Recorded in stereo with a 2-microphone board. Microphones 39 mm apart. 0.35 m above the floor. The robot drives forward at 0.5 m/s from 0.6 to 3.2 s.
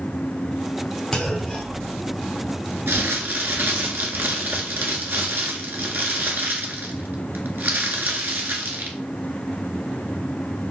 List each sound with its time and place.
1.1 s a clunk: 20° left (ahead or behind), 0.9 m; by 2.6 s 10° left (ahead or behind), 1.6 m
2.9 s crumpling: 80° right, 0.7 m; by 9.0 s 70° right (ahead or behind), 0.8 m